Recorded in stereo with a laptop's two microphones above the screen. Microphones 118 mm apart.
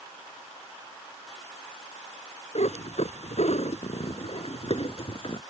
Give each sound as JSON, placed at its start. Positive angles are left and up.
{"t": 2.5, "sound": "a cat meowing", "side_deg": 75}